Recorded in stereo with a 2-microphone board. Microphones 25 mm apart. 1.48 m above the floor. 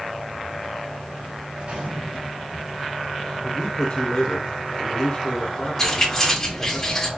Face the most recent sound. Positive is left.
turn(degrees=10)  # may be behind; listen again after turning